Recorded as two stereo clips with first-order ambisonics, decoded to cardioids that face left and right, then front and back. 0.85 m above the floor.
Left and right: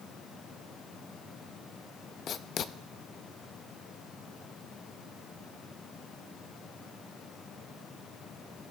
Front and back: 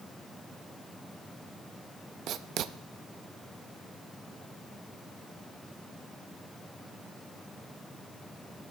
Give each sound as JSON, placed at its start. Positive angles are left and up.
{"t": 2.3, "sound": "writing", "azimuth_deg": 140, "distance_m": 0.5}